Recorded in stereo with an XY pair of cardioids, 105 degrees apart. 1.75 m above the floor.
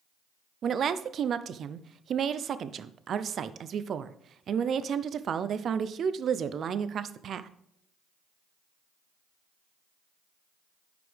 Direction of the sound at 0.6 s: 55° right.